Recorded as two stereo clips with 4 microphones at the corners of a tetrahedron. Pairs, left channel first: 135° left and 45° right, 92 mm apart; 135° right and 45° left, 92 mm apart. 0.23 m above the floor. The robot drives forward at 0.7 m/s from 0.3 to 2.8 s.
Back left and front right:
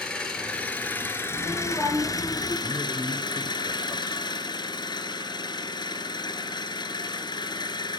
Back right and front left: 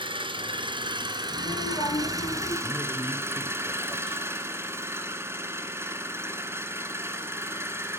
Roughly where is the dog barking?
I don't hear a dog barking.